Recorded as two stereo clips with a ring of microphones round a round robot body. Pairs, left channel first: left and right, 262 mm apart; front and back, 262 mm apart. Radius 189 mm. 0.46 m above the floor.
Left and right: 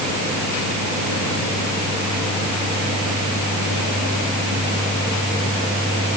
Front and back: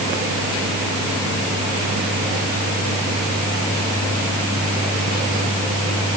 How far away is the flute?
I don't hear a flute.